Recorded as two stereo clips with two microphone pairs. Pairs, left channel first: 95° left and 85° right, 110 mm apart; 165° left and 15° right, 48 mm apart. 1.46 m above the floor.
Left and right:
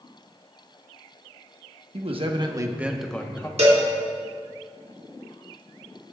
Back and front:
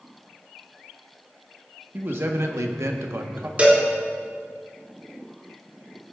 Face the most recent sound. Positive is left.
turn(degrees=-75)